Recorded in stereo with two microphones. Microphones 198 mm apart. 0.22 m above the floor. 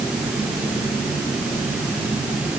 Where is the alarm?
I don't hear an alarm.